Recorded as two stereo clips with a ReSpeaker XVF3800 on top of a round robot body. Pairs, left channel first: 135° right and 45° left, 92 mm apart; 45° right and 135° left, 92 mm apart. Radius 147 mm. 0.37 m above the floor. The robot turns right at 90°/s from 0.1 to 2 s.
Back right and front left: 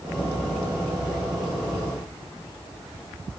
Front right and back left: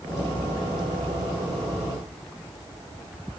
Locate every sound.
Only background noise.